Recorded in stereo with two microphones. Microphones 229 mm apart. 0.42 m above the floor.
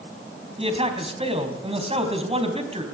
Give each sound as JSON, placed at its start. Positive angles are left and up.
{"t": 0.6, "sound": "a man speaking", "side_deg": -25, "distance_m": 3.5}